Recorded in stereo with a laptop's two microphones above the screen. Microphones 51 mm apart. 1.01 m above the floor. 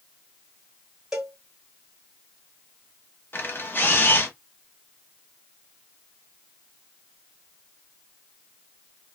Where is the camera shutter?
45° left (ahead or behind), 0.6 m.